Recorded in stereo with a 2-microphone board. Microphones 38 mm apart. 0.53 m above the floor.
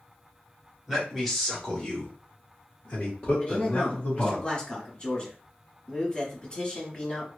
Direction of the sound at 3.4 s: 30° left (ahead or behind).